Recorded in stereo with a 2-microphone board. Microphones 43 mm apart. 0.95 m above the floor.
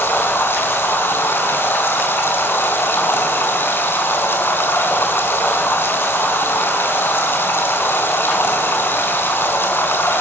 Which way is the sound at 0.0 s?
65° left (ahead or behind).